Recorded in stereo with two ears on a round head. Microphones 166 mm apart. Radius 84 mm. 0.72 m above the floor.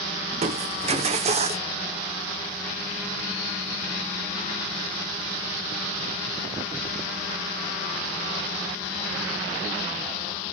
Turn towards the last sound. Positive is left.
turn(degrees=-35)  # may be behind; listen again after turning